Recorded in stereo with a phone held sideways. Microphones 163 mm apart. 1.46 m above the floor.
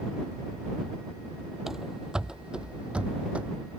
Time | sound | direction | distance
1.7 | running footsteps | 5° right (ahead or behind) | ?